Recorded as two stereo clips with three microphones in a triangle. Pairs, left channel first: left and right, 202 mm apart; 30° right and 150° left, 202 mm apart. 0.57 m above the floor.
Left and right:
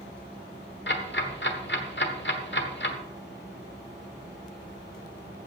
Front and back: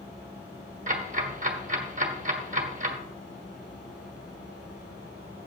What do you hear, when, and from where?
0.9 s ticking: 105° left, 1.3 m